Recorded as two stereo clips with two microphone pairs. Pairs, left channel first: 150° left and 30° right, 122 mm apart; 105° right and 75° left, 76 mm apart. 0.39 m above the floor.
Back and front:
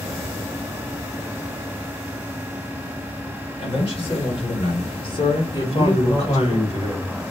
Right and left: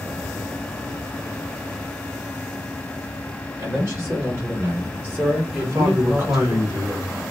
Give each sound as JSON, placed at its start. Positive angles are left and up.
{"t": 3.6, "sound": "a man speaking", "azimuth_deg": 125, "distance_m": 2.0}
{"t": 5.5, "sound": "a man speaking", "azimuth_deg": 125, "distance_m": 1.7}